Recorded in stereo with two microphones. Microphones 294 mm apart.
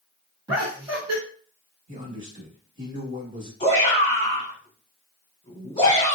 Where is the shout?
25° left (ahead or behind), 1.3 m.